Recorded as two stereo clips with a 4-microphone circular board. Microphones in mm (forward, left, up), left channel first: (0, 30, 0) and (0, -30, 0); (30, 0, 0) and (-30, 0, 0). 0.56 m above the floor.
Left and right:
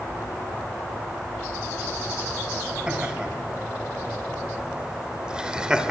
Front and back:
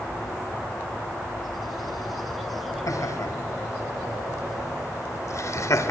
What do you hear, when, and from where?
2.9 s laughter: 15° right, 4 m